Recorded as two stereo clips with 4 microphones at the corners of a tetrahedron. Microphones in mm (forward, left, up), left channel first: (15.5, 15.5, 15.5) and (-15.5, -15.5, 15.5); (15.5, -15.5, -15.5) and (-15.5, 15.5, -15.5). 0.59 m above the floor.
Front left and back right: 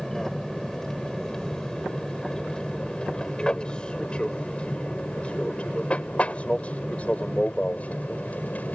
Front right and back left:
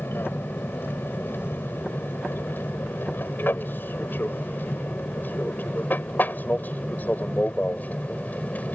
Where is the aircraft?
35° right; by 8.8 s straight ahead.